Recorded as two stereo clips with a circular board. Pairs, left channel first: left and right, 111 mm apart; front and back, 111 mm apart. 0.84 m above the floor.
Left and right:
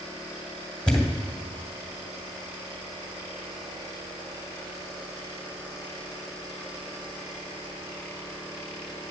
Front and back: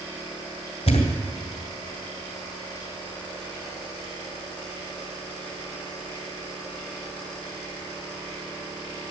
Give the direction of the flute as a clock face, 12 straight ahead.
No flute in this recording.